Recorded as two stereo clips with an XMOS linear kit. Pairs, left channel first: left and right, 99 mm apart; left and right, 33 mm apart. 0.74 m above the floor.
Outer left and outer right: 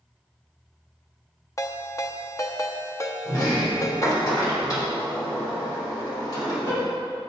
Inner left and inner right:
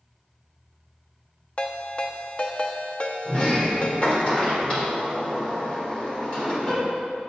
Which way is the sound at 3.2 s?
35° left (ahead or behind).